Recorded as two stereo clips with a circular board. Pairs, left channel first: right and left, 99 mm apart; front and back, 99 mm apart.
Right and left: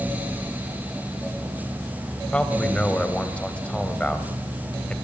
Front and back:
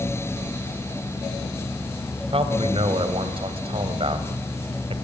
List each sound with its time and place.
2.3 s a man speaking: 170° right, 3 m